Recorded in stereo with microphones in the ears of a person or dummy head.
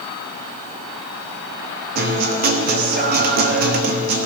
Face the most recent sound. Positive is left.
turn(degrees=-45)  # may be behind; listen again after turning